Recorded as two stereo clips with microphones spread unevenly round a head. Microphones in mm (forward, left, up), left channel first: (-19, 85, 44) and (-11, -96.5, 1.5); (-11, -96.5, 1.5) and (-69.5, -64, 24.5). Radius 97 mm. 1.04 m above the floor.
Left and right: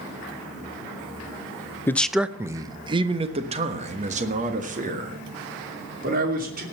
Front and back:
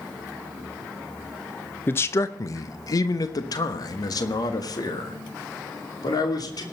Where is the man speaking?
5° left, 0.5 m; by 6.6 s 45° right, 3 m.